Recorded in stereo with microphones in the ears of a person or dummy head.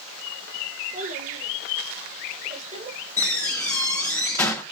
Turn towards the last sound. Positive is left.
turn(degrees=15)  # may be behind; listen again after turning